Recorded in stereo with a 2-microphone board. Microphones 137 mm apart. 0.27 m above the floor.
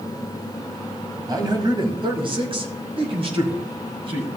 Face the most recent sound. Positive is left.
turn(degrees=-45)  # may be behind; listen again after turning